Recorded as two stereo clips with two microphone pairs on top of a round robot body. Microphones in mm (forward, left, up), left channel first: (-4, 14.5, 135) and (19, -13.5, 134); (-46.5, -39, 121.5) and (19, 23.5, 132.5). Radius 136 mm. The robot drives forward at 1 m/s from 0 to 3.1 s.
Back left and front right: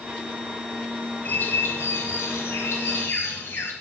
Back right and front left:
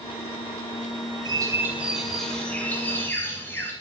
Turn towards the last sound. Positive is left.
turn(degrees=155)